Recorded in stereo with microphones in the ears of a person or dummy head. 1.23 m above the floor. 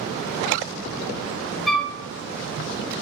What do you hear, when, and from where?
1.7 s a flute: centre (ahead or behind), 0.6 m